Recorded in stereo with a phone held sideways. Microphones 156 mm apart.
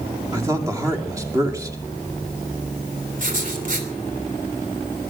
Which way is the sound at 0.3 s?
20° right (ahead or behind).